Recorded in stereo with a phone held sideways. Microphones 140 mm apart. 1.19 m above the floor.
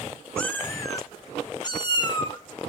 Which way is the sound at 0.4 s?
10° left (ahead or behind).